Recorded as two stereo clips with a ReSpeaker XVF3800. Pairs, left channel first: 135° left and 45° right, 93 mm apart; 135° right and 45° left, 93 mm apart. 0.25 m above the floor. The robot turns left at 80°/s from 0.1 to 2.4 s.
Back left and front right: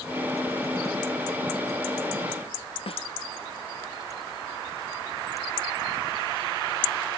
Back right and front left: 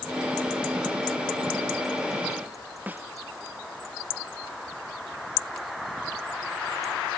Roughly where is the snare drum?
Behind left.